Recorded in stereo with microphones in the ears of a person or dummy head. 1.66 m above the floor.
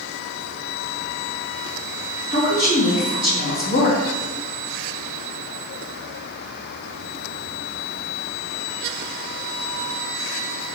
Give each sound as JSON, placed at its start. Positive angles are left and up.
{"t": 2.3, "sound": "a woman speaking", "side_deg": 50, "distance_m": 3.0}